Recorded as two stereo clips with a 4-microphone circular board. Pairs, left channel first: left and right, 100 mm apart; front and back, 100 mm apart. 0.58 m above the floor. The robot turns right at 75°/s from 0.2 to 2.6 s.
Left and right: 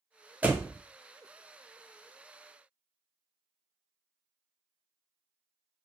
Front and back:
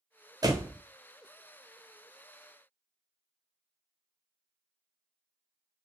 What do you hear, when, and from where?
0.4 s a door slam: 160° right, 0.5 m; by 0.8 s 130° right, 0.5 m